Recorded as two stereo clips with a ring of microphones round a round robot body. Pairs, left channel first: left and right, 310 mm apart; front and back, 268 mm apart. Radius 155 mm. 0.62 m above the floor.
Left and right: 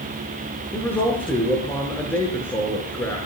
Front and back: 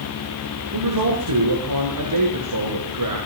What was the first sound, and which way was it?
A man speaking, 175° left.